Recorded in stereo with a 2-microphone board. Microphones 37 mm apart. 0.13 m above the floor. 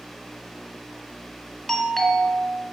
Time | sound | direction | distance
1.7 | a doorbell | 5° left (ahead or behind) | 2.5 m